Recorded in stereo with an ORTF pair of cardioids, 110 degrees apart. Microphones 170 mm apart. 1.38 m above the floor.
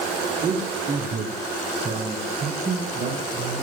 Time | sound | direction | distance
0.4 | a man speaking | 45° right | 4 m